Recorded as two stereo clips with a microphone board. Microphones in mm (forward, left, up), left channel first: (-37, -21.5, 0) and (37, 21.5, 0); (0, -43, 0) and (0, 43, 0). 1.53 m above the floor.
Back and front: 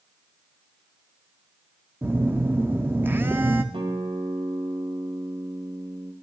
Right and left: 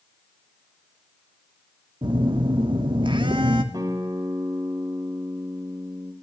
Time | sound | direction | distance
2.0 | a phone buzzing | 95° left | 0.9 m
3.7 | a guitar | 45° left | 1.5 m